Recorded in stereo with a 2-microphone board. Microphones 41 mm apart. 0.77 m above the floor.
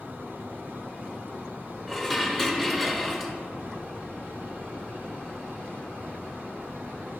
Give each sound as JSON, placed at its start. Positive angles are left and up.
{"t": 1.9, "sound": "dishes clattering", "side_deg": 0, "distance_m": 0.7}